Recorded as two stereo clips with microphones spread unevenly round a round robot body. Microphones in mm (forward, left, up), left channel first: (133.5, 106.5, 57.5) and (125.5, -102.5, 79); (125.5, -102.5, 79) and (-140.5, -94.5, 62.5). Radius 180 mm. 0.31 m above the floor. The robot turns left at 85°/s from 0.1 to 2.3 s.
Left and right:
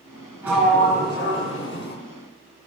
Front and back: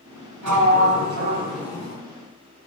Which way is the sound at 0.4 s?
175° right.